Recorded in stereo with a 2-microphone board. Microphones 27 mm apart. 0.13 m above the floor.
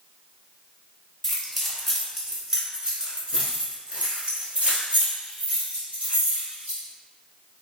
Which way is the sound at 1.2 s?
10° left (ahead or behind).